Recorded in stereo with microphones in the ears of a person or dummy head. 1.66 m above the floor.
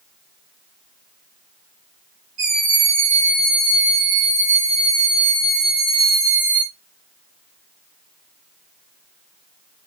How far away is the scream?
About 3 m.